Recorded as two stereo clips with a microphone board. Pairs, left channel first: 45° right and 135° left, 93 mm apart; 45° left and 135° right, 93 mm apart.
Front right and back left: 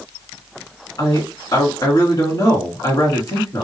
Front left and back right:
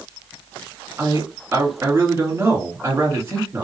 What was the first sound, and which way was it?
A man speaking, 80° right.